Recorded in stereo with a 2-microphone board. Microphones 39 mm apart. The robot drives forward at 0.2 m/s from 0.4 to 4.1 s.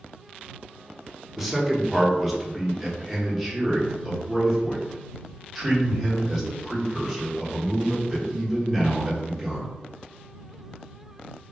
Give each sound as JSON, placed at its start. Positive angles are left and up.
{"t": 1.4, "sound": "a man speaking", "side_deg": -5, "distance_m": 0.6}